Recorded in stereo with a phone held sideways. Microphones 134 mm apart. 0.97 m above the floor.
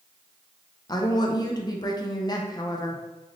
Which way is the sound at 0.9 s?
30° left (ahead or behind).